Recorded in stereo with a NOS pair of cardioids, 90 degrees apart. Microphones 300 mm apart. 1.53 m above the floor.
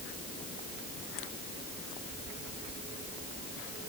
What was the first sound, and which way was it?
Only background noise.